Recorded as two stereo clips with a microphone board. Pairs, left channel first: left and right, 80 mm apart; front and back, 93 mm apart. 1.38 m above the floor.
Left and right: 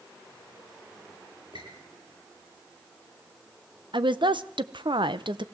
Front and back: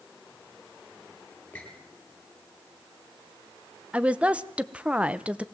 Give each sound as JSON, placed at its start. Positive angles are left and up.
{"t": 1.5, "sound": "a squeak", "azimuth_deg": -75, "distance_m": 9.5}
{"t": 3.9, "sound": "a woman speaking", "azimuth_deg": -100, "distance_m": 0.9}